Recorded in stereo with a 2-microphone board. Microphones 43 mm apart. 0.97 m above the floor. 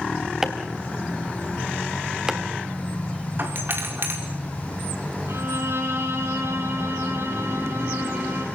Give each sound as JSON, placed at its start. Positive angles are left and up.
{"t": 0.4, "sound": "chopping", "side_deg": -10, "distance_m": 2.5}
{"t": 3.4, "sound": "a doorbell", "side_deg": -55, "distance_m": 4.5}
{"t": 5.3, "sound": "a violin", "side_deg": -85, "distance_m": 7.5}